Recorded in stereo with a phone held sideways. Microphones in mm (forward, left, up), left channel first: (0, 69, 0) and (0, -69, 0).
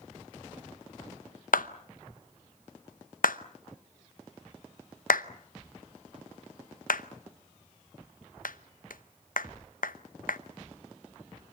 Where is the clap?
85° left, 0.9 m.